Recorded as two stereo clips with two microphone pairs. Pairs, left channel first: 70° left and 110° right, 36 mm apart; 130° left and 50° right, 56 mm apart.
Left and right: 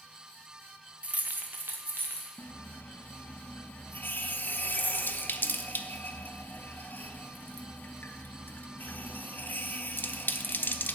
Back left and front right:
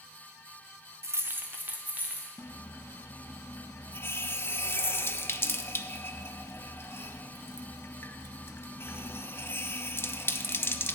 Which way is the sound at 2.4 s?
85° left.